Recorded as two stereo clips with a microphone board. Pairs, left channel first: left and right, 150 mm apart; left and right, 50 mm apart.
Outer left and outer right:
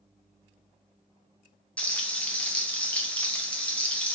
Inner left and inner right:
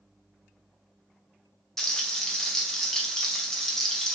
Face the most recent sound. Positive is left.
turn(degrees=10)  # may be behind; listen again after turning